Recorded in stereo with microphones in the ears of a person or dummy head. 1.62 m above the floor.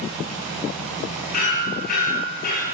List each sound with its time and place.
1.3 s hammering: 55° left (ahead or behind), 9.5 m